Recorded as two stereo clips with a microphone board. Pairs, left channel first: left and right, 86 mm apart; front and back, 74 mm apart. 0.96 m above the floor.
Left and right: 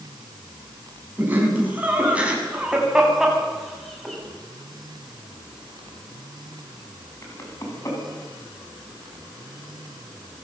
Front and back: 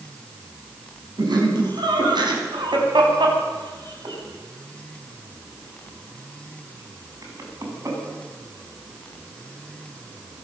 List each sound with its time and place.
1.2 s laughter: 160° right, 7 m; by 8.0 s 135° left, 7 m